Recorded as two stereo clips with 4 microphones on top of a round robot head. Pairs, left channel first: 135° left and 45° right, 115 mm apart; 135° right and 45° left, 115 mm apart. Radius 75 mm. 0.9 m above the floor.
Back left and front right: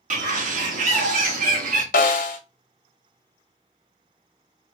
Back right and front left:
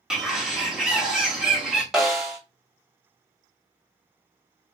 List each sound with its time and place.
0.1 s a bird: 40° right, 1.2 m
1.9 s a snare drum: 135° left, 0.8 m